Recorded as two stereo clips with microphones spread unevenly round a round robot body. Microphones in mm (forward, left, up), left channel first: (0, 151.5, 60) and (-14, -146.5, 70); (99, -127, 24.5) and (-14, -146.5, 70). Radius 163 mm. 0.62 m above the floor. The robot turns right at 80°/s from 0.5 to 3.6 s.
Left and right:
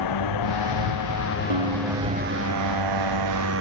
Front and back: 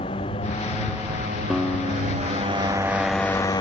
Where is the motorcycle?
70° left; by 3.6 s 40° right.